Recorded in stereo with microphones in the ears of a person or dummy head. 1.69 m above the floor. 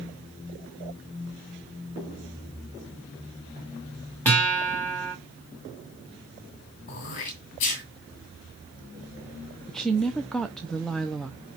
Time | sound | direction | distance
4.2 | a guitar | 5° left (ahead or behind) | 3 m
6.9 | throat clearing | 40° left (ahead or behind) | 2 m
9.7 | a woman speaking | centre (ahead or behind) | 0.6 m